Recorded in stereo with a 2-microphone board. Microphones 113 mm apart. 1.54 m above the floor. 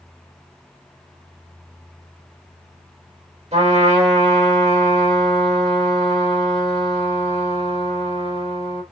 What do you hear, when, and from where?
3.5 s a trumpet: 75° right (ahead or behind), 3 m